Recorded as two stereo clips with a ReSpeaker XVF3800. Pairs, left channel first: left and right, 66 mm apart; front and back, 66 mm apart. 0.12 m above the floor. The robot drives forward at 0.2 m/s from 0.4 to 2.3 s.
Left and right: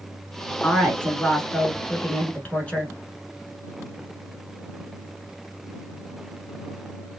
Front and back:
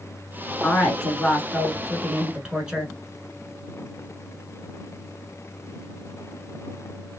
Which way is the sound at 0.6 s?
75° left.